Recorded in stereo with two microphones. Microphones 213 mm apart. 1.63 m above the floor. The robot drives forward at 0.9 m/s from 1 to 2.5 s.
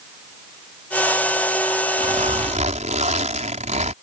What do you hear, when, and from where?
2.0 s a zipper: 40° right (ahead or behind); by 3.9 s 35° right (ahead or behind)